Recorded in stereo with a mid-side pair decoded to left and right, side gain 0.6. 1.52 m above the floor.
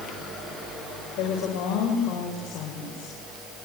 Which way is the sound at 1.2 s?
65° left.